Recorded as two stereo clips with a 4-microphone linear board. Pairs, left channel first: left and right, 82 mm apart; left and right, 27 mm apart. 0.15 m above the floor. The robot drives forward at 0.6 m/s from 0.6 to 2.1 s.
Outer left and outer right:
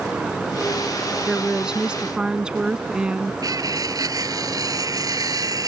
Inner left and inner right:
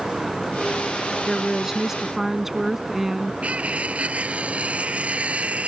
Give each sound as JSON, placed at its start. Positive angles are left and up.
{"t": 1.3, "sound": "a woman speaking", "side_deg": -10}
{"t": 3.4, "sound": "cutlery clinking", "side_deg": -50}